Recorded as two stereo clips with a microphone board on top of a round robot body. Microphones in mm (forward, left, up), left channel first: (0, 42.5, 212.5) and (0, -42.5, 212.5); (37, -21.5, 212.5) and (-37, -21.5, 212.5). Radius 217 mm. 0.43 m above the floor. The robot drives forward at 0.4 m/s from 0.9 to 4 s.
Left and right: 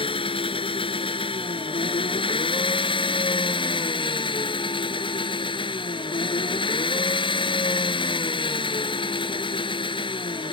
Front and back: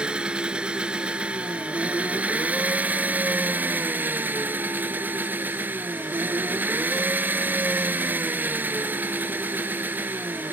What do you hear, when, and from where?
0.0 s an engine running: 105° left; by 10.5 s 115° left